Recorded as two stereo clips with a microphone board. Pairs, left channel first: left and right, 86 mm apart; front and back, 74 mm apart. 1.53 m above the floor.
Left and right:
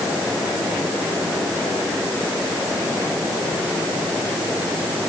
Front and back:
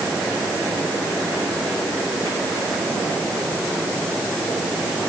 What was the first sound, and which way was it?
Only background noise.